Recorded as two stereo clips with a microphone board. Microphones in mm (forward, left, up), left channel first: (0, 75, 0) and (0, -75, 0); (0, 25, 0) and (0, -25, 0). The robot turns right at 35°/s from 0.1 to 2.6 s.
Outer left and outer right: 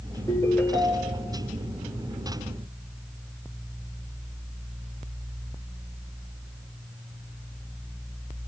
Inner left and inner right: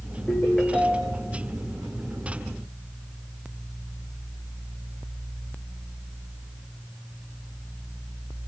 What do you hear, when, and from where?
0.3 s a ringtone: 155° left, 4 m; by 1.3 s 170° right, 4 m